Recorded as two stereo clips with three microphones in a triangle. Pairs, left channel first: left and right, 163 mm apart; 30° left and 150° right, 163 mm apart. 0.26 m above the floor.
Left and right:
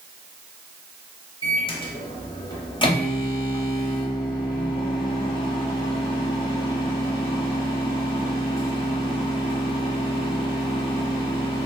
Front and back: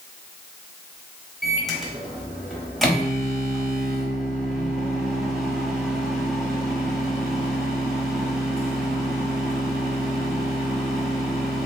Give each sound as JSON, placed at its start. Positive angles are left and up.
{"t": 1.4, "sound": "a microwave", "azimuth_deg": 120, "distance_m": 0.8}